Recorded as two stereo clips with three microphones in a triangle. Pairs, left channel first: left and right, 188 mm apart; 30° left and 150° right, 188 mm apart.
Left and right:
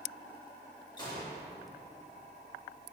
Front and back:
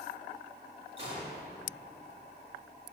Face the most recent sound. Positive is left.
turn(degrees=155)